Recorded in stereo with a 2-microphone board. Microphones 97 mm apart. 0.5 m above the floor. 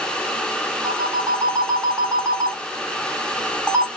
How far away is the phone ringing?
About 0.7 m.